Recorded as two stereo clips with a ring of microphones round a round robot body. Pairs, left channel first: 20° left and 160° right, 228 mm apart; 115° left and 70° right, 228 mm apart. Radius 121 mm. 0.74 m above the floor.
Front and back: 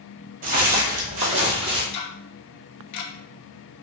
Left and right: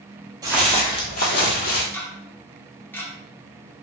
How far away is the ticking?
About 0.6 m.